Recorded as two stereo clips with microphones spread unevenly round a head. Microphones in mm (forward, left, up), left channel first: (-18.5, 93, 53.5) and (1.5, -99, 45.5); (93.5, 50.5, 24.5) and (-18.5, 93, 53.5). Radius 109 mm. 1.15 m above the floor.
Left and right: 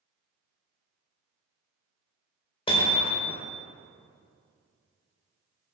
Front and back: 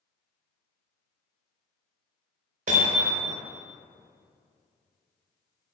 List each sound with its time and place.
2.7 s hammering: 160° left, 4 m